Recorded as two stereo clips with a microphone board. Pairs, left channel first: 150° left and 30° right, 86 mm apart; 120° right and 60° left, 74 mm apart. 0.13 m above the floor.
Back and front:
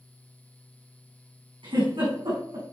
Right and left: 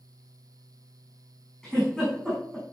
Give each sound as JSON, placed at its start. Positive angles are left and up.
{"t": 1.6, "sound": "a giggle", "azimuth_deg": -35, "distance_m": 6.0}